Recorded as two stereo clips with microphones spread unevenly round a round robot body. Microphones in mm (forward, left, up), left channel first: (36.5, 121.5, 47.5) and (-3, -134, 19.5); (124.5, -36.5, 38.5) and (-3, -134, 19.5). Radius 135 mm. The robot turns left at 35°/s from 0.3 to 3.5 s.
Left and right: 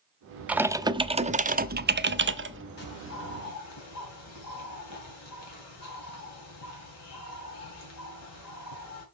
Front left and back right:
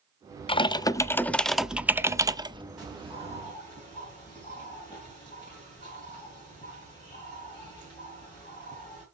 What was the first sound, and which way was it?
Typing on a keyboard, 20° right.